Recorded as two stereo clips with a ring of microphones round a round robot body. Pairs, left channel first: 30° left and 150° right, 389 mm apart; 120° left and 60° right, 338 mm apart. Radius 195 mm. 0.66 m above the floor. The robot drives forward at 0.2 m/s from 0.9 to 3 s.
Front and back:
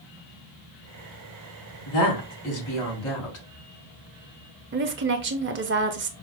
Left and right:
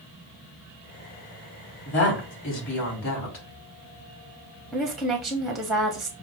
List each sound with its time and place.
1.9 s a woman speaking: 65° left, 2.5 m; by 3.5 s 70° left, 2.5 m
4.7 s a woman speaking: 150° right, 0.6 m